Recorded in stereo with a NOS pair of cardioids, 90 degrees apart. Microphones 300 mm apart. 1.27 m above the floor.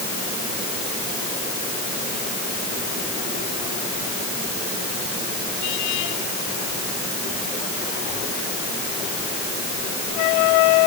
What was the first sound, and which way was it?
Only background noise.